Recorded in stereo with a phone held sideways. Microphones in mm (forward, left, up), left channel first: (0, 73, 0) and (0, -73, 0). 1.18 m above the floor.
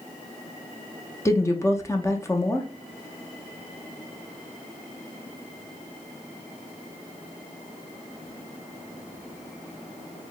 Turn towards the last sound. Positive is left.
turn(degrees=20)  # may be behind; listen again after turning